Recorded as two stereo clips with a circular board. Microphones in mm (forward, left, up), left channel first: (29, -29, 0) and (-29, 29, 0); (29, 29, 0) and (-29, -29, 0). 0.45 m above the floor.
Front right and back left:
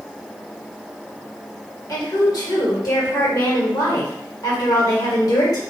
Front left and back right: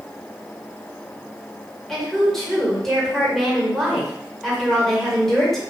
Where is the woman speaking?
40° right, 1.6 m.